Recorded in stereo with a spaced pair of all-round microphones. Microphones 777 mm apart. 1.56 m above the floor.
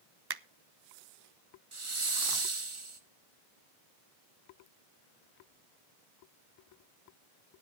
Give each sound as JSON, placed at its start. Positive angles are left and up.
{"t": 0.3, "sound": "a finger snap", "side_deg": -35, "distance_m": 0.5}
{"t": 1.7, "sound": "a hiss", "side_deg": -40, "distance_m": 1.3}